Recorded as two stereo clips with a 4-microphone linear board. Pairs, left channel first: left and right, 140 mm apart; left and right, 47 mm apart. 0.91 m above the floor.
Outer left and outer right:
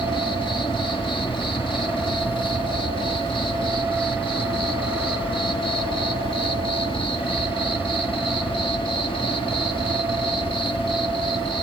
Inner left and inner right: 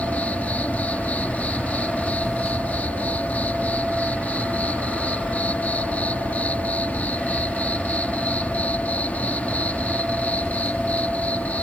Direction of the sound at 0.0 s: 35° left (ahead or behind).